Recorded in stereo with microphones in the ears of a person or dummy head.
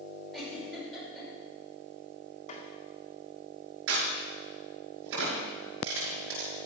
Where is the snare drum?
40° left (ahead or behind), 2.0 m.